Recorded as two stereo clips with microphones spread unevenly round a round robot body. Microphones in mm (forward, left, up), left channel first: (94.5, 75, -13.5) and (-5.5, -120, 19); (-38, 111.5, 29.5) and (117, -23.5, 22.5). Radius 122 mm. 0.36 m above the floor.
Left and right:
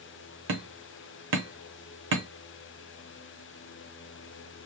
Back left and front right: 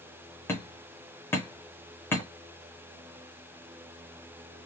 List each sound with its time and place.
0.5 s hammering: 145° right, 1.0 m